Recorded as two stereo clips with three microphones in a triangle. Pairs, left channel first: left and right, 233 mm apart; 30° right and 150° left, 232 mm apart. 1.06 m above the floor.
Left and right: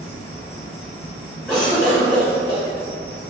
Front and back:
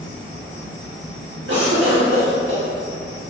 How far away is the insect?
About 1.0 m.